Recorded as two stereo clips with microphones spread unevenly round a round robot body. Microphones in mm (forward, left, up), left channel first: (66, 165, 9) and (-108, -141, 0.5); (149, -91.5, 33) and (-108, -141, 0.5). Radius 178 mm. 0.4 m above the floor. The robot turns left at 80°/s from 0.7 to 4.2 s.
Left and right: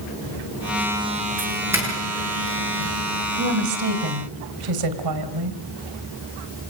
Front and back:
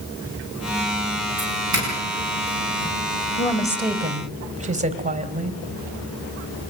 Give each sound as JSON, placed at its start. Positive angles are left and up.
{"t": 1.4, "sound": "a doorbell", "azimuth_deg": -175, "distance_m": 8.0}
{"t": 3.4, "sound": "a woman speaking", "azimuth_deg": -45, "distance_m": 3.0}